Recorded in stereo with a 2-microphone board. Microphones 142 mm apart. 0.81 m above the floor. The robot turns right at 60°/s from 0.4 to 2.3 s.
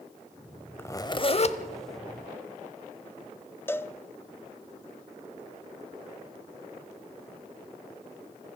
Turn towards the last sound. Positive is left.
turn(degrees=15)  # may be behind; listen again after turning